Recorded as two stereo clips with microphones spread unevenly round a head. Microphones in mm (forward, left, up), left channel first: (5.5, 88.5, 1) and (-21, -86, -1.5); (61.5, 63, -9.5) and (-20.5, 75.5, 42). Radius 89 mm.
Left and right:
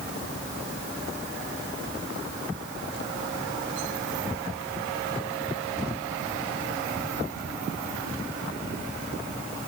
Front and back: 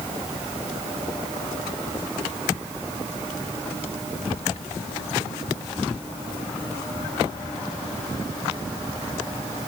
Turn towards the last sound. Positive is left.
No sound to turn to.